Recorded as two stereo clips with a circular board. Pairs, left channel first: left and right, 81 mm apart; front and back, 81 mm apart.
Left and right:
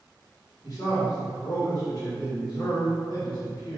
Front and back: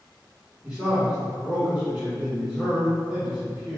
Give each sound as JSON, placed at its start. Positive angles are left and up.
{"t": 0.6, "sound": "a man speaking", "azimuth_deg": 100, "distance_m": 1.8}